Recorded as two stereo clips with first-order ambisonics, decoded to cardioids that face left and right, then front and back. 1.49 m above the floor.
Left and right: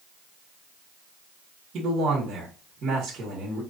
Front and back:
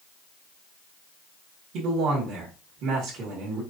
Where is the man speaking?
145° right, 1.7 m.